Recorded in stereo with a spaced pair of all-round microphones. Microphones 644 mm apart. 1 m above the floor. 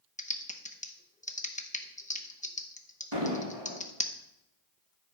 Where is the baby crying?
I don't hear a baby crying.